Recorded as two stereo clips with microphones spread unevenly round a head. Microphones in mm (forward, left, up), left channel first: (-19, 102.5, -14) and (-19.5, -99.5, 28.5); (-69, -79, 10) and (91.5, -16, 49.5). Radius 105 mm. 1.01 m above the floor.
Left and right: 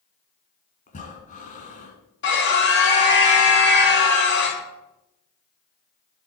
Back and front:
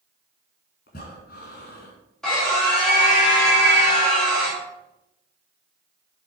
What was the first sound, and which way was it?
Breathing, 145° left.